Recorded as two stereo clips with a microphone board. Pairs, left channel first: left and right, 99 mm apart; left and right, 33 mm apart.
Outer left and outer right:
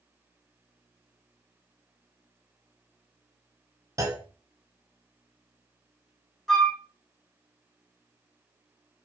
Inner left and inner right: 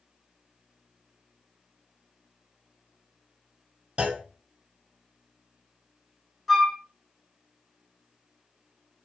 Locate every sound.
4.0 s a clunk: 35° right (ahead or behind), 0.5 m
6.5 s a flute: 5° left (ahead or behind), 0.7 m